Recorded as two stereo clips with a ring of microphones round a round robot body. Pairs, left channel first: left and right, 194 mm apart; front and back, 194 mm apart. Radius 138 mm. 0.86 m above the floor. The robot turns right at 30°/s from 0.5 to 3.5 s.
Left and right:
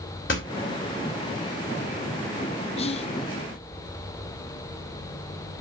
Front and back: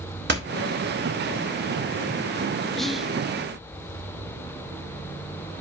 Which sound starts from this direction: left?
Whispering, at 2.8 s.